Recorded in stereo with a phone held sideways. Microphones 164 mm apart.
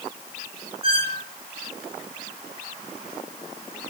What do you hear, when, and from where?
0.8 s a squeak: 55° left (ahead or behind), 3 m